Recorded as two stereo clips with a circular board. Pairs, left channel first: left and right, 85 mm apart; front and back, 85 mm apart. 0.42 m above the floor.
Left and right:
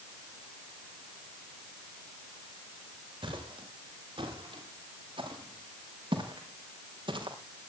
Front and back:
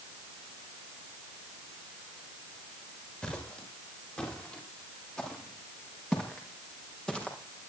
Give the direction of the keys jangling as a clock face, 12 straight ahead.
I don't hear keys jangling.